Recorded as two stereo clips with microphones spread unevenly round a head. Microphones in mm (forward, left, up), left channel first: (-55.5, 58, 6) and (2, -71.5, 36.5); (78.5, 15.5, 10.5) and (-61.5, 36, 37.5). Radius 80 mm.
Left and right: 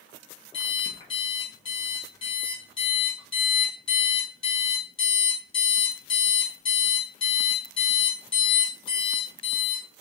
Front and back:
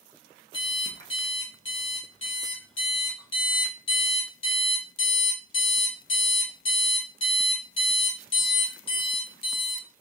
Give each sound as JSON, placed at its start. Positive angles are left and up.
{"t": 0.5, "sound": "an alarm clock", "azimuth_deg": 45, "distance_m": 1.4}